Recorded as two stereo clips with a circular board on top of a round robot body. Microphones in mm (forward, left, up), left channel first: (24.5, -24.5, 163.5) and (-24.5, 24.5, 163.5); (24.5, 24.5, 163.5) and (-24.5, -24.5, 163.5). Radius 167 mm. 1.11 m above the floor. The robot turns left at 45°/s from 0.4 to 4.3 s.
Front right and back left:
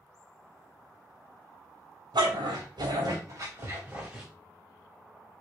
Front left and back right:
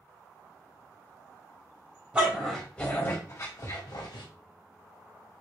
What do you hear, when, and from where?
2.1 s a dog barking: 150° left, 3 m; by 4.2 s 55° left, 3 m